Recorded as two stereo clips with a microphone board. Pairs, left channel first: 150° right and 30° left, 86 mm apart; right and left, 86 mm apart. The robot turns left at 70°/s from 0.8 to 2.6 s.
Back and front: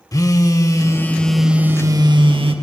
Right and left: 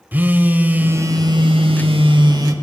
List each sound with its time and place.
0.1 s a phone buzzing: 160° left, 0.7 m; by 2.5 s 40° left, 0.7 m